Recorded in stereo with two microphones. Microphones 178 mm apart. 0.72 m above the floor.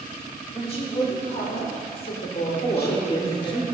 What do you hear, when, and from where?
0.5 s a woman speaking: 35° left (ahead or behind), 2 m; by 3.6 s 65° left (ahead or behind), 1.8 m
2.6 s a man speaking: 30° left (ahead or behind), 1.4 m